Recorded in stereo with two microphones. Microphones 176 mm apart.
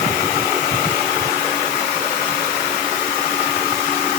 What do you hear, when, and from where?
Only background noise.